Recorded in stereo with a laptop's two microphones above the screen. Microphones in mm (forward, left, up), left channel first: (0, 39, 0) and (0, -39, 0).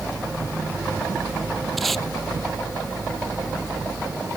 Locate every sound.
1.8 s tape being pulled: centre (ahead or behind)